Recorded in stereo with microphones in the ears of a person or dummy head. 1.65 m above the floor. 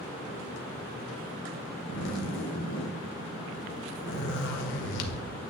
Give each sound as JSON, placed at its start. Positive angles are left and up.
{"t": 1.9, "sound": "a zipper", "side_deg": 65, "distance_m": 1.0}